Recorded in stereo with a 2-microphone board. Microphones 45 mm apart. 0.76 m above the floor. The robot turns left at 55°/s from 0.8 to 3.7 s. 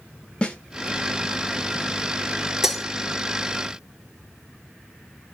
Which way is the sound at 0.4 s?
25° left (ahead or behind).